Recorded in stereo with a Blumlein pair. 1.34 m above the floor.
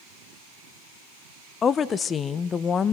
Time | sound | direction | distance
1.6 | a woman speaking | 20° left | 0.7 m